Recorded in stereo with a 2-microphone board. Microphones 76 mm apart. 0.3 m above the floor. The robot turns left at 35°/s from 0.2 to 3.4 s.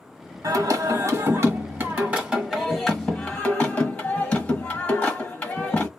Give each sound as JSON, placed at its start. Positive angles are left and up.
{"t": 0.4, "sound": "singing", "azimuth_deg": -95, "distance_m": 1.1}